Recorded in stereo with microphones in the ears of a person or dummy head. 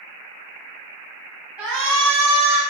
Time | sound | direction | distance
1.6 | a shout | 10° right (ahead or behind) | 1.7 m